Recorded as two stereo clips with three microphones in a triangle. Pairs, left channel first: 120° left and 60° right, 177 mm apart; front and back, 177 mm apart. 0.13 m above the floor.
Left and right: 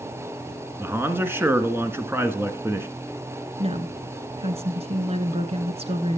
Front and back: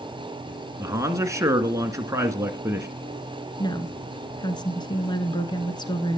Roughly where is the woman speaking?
Ahead right.